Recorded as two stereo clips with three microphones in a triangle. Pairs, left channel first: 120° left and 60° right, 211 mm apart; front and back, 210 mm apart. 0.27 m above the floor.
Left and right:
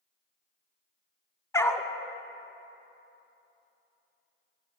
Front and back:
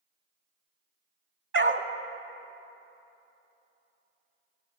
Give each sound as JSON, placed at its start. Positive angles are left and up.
{"t": 1.5, "sound": "a dog barking", "azimuth_deg": -165, "distance_m": 0.7}